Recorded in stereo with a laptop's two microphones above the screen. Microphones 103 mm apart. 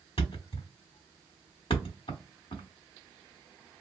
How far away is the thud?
About 1.1 m.